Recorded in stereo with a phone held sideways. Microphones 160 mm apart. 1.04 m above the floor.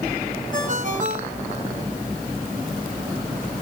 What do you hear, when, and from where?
0.5 s a ringtone: 50° right (ahead or behind), 4 m